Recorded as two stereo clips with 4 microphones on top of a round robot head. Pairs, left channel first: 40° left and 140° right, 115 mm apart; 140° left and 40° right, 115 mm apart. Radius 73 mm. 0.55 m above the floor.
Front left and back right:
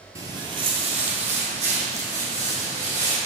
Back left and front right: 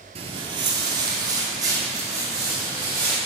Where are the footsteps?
75° right, 0.7 m; by 3.1 s 110° right, 3 m.